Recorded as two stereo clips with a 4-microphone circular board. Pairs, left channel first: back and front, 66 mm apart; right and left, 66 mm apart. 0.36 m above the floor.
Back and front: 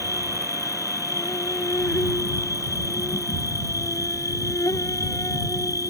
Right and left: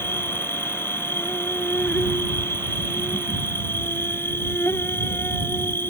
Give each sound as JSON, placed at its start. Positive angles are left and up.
{"t": 0.0, "sound": "an insect", "azimuth_deg": -145}